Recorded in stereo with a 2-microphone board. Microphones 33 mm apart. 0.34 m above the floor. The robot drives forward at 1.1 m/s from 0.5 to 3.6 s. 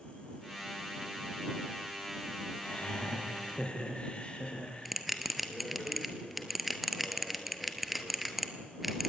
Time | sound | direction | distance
2.6 | laughter | 45° left (ahead or behind) | 4.5 m
4.8 | a bell | centre (ahead or behind) | 2 m